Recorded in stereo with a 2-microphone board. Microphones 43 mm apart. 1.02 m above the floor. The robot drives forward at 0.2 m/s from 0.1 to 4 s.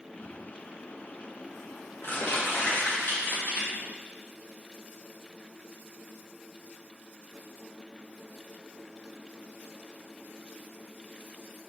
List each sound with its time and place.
0.2 s crumpling: 60° left (ahead or behind), 1.7 m; by 3.7 s 50° left (ahead or behind), 2.0 m